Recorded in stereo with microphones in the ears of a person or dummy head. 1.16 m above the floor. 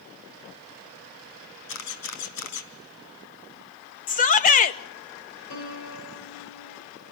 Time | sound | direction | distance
1.7 | a camera shutter | 80° left | 4 m
4.1 | a shout | 40° left (ahead or behind) | 1.8 m
5.5 | a piano | 70° left (ahead or behind) | 4 m